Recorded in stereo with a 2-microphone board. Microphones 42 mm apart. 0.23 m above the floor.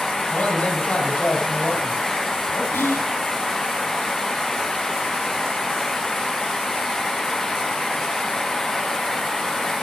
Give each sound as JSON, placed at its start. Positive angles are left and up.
{"t": 0.3, "sound": "a man speaking", "side_deg": 30, "distance_m": 8.0}
{"t": 2.7, "sound": "whispering", "side_deg": 70, "distance_m": 3.5}